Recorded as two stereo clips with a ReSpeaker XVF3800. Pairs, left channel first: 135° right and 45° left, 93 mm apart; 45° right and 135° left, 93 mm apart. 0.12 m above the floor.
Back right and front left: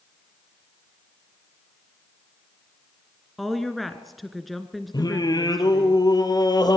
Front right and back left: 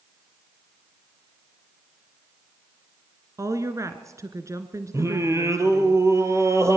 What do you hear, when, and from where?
3.4 s a woman speaking: 135° left, 1.4 m
4.9 s singing: 170° right, 2.5 m